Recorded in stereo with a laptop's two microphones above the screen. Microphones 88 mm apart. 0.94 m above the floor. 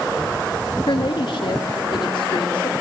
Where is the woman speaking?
65° left (ahead or behind), 1.8 m; by 2.7 s 80° left, 3.5 m.